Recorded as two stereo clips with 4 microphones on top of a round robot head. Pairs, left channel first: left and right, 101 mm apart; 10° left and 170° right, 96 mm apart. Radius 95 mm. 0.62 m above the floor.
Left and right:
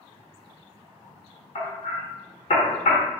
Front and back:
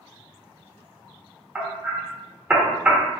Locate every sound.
1.6 s hammering: 115° left, 1.1 m